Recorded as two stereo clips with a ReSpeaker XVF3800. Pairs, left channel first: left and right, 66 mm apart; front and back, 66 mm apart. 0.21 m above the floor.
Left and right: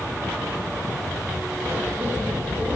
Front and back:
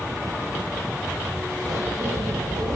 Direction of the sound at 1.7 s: 155° right.